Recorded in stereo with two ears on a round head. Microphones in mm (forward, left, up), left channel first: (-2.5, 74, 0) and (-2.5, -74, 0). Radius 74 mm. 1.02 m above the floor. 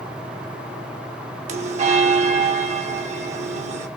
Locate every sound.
1.5 s a bell: 40° right (ahead or behind), 1.2 m